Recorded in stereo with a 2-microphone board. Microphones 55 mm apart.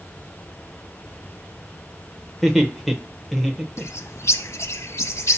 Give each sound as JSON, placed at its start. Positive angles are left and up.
{"t": 2.4, "sound": "laughter", "side_deg": -5, "distance_m": 0.9}
{"t": 3.8, "sound": "a bird", "side_deg": 65, "distance_m": 0.7}